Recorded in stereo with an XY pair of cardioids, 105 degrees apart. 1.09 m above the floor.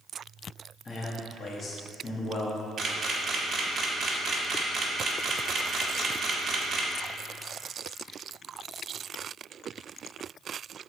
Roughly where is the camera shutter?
Ahead right.